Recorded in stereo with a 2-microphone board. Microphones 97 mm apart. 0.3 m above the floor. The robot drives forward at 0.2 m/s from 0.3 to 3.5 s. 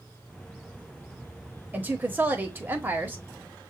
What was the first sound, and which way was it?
A woman speaking, 15° right (ahead or behind).